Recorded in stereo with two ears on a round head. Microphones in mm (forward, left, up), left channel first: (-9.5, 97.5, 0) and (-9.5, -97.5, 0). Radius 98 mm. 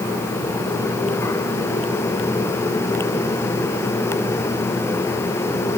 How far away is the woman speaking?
No woman speaking in this recording.